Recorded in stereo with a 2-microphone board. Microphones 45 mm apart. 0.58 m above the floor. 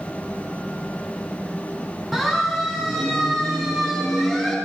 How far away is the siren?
About 7 m.